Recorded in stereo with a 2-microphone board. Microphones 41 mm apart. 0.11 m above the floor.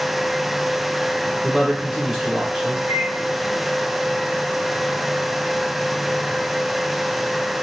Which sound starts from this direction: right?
A microwave, at 2.9 s.